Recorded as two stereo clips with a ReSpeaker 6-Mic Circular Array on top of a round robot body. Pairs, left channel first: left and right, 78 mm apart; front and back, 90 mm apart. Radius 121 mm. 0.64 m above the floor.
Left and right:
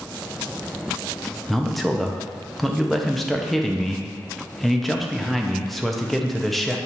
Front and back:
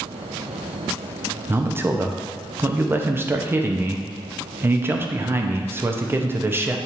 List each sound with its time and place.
1.5 s a man speaking: 175° left, 0.6 m